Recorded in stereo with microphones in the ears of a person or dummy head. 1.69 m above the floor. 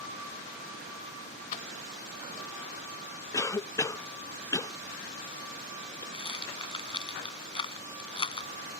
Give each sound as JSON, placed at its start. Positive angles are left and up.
{"t": 1.5, "sound": "keys jangling", "side_deg": 45}
{"t": 3.3, "sound": "a cough", "side_deg": 20}
{"t": 6.1, "sound": "a rattle", "side_deg": 30}